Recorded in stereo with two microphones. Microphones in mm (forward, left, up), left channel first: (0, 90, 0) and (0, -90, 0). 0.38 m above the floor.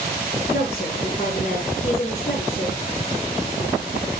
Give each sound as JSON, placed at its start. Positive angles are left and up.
{"t": 0.5, "sound": "a woman speaking", "side_deg": 35, "distance_m": 5.0}